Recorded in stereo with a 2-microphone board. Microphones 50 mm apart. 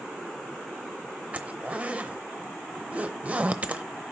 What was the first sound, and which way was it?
A zipper, 30° right (ahead or behind).